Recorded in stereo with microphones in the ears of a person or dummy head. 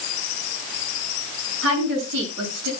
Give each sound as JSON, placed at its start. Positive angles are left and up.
{"t": 1.6, "sound": "a woman speaking", "side_deg": -80, "distance_m": 9.0}